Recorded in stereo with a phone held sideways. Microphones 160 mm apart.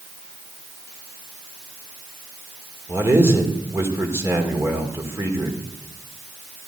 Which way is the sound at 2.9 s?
15° right (ahead or behind).